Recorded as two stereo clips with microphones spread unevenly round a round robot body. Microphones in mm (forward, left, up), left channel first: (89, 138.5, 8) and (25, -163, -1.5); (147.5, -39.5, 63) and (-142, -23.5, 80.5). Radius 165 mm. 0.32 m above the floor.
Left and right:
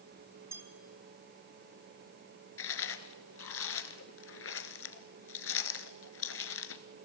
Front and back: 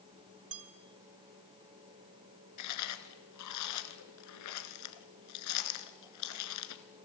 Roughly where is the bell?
Behind.